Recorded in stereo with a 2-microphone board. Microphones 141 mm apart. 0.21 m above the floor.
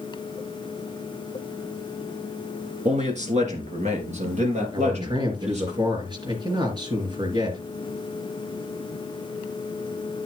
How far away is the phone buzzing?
I don't hear a phone buzzing.